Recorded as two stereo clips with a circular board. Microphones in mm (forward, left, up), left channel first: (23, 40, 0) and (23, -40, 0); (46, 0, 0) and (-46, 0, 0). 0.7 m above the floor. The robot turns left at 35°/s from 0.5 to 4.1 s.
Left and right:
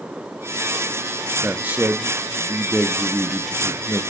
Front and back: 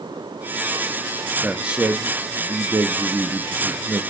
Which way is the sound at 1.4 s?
115° right.